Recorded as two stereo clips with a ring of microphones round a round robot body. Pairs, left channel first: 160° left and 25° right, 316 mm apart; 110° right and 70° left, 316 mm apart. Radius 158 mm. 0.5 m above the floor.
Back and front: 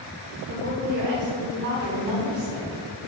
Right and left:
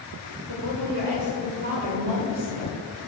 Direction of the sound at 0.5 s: 35° left.